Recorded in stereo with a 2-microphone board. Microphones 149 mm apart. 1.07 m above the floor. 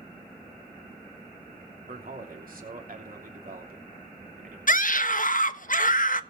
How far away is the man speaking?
About 3 m.